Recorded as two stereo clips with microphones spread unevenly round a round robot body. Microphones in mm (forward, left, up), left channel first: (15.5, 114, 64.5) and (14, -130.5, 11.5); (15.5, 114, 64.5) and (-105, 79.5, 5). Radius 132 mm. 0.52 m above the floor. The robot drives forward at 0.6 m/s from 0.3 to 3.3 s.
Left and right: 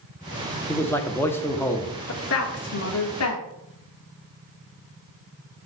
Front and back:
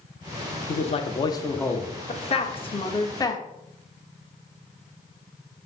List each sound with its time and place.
0.7 s a man speaking: 5° right, 0.9 m; by 1.9 s 170° right, 0.8 m
2.1 s a woman speaking: 60° left, 1.6 m; by 3.4 s 95° left, 1.4 m